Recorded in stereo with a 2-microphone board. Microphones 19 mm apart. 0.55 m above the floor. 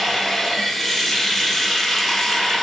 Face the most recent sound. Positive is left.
turn(degrees=5)  # may be behind; listen again after turning